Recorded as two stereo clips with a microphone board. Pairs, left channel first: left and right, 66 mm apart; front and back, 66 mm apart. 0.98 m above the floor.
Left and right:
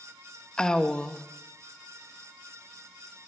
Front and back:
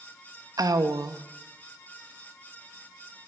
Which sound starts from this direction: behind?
A woman speaking, at 0.6 s.